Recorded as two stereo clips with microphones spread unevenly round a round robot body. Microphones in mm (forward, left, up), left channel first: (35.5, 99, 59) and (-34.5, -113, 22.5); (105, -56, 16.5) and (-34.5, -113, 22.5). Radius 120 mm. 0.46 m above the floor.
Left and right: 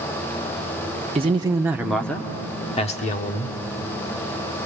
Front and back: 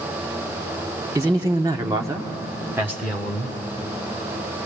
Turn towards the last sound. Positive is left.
turn(degrees=120)